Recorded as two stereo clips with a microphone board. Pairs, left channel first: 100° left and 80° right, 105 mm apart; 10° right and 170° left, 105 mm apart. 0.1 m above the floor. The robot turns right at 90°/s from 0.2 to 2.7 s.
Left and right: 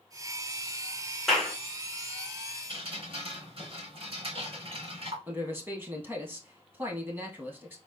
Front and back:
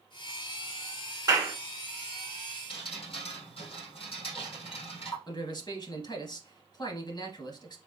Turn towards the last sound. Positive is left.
turn(degrees=-20)